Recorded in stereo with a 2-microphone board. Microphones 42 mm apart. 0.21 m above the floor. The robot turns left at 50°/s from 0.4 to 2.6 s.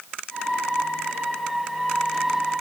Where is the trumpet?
I don't hear a trumpet.